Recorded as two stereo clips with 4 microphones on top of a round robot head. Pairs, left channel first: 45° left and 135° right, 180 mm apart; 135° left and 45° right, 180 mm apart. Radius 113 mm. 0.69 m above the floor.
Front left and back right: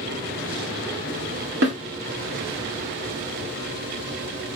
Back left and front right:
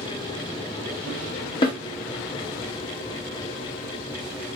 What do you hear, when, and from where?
1.6 s a snare drum: 160° right, 1.6 m